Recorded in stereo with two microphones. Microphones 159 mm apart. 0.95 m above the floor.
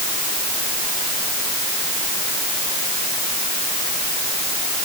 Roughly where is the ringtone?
I don't hear a ringtone.